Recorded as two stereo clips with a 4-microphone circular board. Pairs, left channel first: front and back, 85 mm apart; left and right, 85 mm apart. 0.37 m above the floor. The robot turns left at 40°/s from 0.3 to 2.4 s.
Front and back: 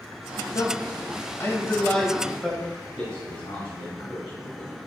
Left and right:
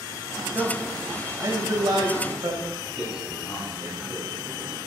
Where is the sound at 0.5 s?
20° right, 2.0 m; by 2.6 s 95° right, 2.0 m.